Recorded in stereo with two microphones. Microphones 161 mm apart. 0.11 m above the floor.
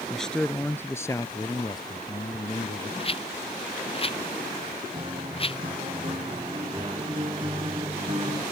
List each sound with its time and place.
0.1 s a man speaking: centre (ahead or behind); by 2.9 s 35° left (ahead or behind)
3.0 s a rattle: 35° left (ahead or behind)
4.9 s a guitar: 35° right (ahead or behind)